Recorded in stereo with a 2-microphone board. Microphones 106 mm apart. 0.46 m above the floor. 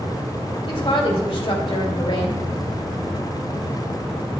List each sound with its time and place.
0.7 s a woman speaking: 55° left (ahead or behind), 2 m